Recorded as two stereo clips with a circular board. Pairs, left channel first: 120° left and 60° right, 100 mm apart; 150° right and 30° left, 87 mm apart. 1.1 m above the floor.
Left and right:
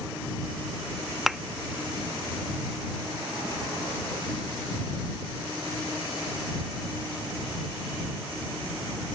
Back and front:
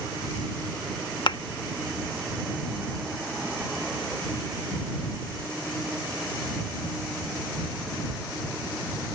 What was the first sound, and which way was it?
A thud, 145° right.